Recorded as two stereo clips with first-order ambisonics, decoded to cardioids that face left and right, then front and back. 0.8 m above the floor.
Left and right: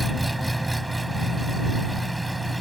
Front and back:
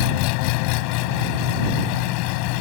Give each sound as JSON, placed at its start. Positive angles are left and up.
{"t": 0.0, "sound": "an engine running", "azimuth_deg": -5}